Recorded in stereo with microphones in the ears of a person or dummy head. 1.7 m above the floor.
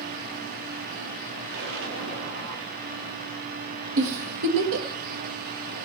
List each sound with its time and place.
1.5 s an explosion: 65° right (ahead or behind), 3.5 m
4.0 s a giggle: 60° right (ahead or behind), 1.8 m